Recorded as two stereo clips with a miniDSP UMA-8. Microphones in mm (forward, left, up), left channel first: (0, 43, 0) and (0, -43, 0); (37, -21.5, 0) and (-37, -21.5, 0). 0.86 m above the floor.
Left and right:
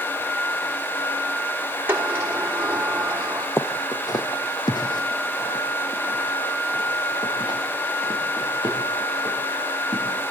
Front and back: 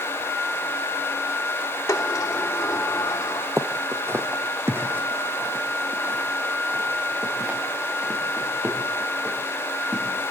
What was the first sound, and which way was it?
A sliding door, 30° right.